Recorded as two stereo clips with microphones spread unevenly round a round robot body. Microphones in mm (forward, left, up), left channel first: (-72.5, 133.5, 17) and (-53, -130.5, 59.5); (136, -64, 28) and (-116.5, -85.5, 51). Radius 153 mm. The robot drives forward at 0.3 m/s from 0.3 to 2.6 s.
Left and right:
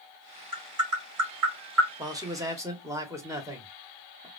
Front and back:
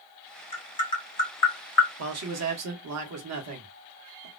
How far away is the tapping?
About 1.8 m.